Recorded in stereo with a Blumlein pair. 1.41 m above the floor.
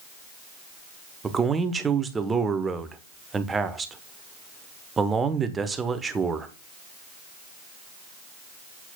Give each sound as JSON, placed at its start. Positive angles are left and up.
{"t": 1.2, "sound": "a man speaking", "azimuth_deg": -15, "distance_m": 0.9}